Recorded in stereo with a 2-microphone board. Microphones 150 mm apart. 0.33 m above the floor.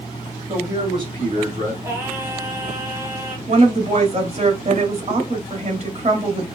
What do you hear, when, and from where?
0.5 s a man speaking: 25° right (ahead or behind), 1.9 m; by 1.7 s 55° right (ahead or behind), 2.5 m
1.8 s singing: 20° right (ahead or behind), 1.7 m
3.5 s a woman speaking: 45° right (ahead or behind), 1.5 m